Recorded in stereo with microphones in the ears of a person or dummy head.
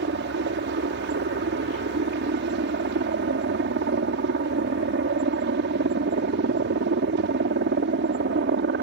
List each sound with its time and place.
0.0 s a helicopter: 50° right (ahead or behind)